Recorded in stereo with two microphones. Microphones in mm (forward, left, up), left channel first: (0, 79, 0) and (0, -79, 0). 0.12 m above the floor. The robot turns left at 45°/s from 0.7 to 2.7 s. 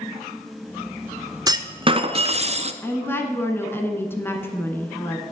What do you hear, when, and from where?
1.5 s a clunk: 35° right, 0.5 m; by 2.7 s 90° right, 0.5 m
2.8 s a woman speaking: 15° left (ahead or behind), 1.1 m